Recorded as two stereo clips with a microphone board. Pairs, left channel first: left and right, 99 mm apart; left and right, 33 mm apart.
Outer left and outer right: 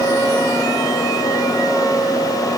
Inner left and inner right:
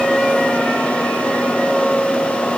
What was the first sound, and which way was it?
Only background noise.